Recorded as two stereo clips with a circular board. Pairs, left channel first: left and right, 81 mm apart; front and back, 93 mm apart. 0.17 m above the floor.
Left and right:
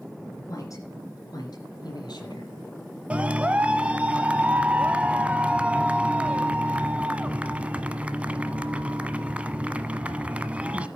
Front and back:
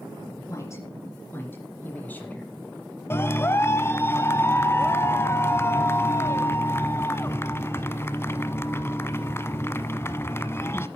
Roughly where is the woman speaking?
Ahead left.